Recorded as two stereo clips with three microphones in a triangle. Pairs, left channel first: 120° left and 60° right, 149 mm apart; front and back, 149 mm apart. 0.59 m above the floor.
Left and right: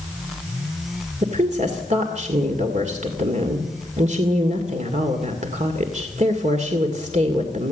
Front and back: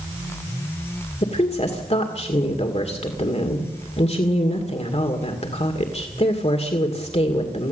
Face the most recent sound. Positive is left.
turn(degrees=-35)